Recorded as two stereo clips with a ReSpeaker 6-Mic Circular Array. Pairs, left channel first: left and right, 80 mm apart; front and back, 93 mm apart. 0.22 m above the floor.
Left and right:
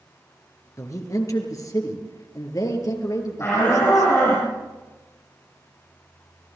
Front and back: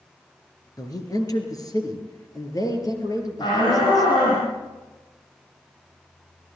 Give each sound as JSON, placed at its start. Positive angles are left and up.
{"t": 0.8, "sound": "a man speaking", "azimuth_deg": 45, "distance_m": 4.0}
{"t": 3.4, "sound": "a shout", "azimuth_deg": 35, "distance_m": 6.5}